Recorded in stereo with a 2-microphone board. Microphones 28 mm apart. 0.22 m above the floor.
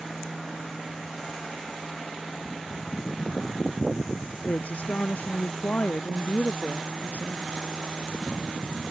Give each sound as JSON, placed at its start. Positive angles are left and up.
{"t": 4.5, "sound": "a woman speaking", "side_deg": 65}